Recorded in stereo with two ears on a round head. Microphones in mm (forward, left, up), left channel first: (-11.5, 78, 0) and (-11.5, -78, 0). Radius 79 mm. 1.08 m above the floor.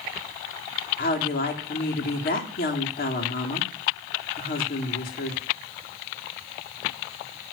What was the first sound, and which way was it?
A woman speaking, 60° left (ahead or behind).